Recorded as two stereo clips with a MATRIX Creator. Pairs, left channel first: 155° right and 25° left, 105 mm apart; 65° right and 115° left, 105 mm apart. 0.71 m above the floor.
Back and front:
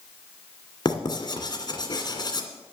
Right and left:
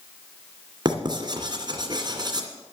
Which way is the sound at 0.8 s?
160° left.